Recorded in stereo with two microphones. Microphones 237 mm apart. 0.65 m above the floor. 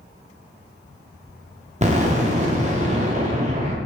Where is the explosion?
30° right (ahead or behind), 0.6 m.